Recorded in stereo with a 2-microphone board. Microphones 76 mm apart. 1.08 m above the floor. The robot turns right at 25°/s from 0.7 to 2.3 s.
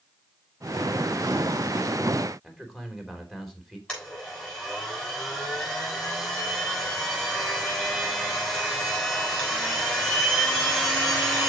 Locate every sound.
2.4 s a man speaking: centre (ahead or behind), 3 m
3.9 s a blender: 10° left (ahead or behind), 6.5 m